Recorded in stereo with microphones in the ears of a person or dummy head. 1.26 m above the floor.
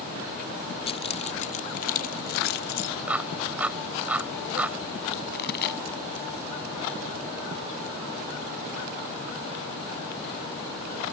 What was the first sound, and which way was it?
Keys jangling, 30° left (ahead or behind).